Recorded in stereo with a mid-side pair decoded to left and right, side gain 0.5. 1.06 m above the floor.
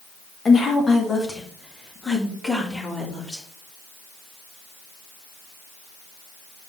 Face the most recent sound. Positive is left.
turn(degrees=15)